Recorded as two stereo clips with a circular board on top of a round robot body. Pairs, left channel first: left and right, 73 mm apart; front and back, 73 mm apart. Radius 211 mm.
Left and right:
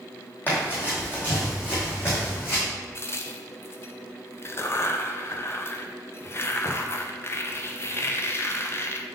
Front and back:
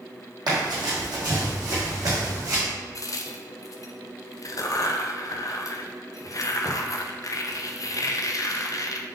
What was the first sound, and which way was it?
Running footsteps, 150° left.